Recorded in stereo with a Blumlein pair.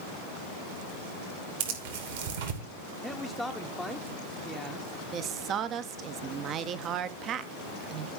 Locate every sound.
1.6 s tearing paper: 55° right, 2.5 m
3.0 s a man speaking: straight ahead, 0.8 m
5.1 s a woman speaking: 30° right, 0.8 m